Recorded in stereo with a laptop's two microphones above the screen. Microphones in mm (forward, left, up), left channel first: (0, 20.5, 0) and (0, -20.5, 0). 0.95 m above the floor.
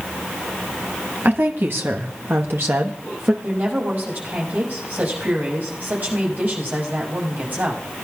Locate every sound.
1.2 s a woman speaking: 55° right (ahead or behind), 1.2 m; by 3.3 s 50° right (ahead or behind), 1.1 m
3.4 s a woman speaking: 45° right (ahead or behind), 5.5 m